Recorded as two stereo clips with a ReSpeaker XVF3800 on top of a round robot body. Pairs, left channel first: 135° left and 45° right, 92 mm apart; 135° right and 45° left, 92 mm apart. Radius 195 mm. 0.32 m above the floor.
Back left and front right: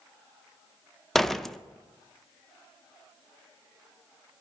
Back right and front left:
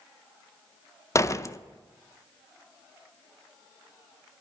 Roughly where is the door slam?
Behind right.